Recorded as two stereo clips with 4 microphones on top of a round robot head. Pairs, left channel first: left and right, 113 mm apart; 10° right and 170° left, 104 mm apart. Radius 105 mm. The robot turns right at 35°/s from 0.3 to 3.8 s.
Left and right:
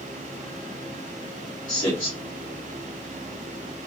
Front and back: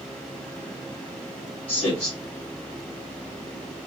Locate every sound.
1.7 s a man speaking: 30° left, 1.7 m; by 2.1 s 45° left, 1.7 m